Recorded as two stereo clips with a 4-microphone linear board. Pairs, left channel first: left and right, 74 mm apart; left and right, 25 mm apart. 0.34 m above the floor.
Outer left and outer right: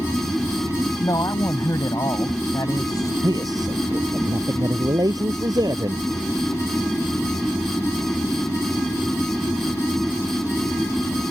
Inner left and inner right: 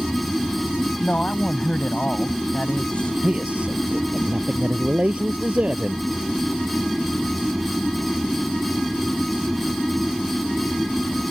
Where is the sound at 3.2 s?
60° right (ahead or behind).